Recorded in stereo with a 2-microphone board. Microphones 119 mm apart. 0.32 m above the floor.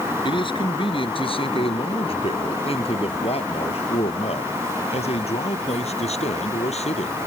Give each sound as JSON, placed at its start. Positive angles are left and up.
{"t": 0.2, "sound": "a man speaking", "side_deg": 45}